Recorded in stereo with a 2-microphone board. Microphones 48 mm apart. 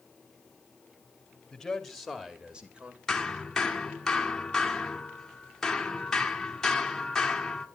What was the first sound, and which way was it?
A man speaking, 10° left (ahead or behind).